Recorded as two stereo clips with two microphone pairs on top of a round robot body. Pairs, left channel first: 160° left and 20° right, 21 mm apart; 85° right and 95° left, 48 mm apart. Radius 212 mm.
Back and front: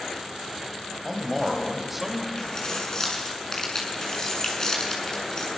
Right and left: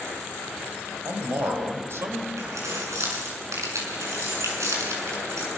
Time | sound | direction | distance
1.1 | a man speaking | 65° left | 5 m
2.4 | keys jangling | 100° left | 7 m